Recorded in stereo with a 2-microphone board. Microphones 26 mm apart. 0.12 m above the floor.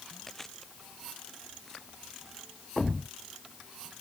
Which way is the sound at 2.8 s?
25° left (ahead or behind).